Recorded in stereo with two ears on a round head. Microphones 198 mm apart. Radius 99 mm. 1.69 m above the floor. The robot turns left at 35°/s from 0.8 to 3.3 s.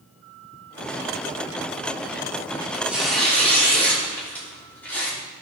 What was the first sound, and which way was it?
Tearing paper, 15° right (ahead or behind).